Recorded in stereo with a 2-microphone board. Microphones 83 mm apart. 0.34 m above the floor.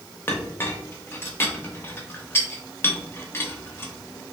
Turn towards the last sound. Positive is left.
turn(degrees=30)  # may be behind; listen again after turning